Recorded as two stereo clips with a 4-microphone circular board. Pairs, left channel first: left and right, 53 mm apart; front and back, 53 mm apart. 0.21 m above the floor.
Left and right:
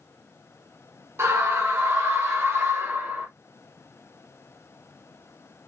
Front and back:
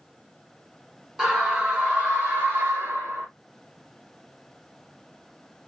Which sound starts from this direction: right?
A scream, at 1.2 s.